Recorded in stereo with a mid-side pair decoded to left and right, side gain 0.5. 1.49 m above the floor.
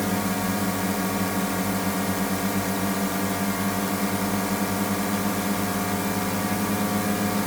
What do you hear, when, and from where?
0.0 s a drone: 5° left